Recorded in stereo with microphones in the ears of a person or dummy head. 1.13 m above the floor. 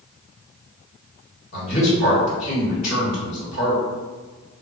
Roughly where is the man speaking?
Left.